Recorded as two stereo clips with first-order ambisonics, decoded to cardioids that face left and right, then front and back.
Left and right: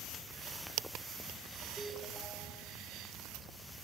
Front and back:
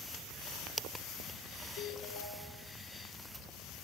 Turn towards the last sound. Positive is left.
turn(degrees=-5)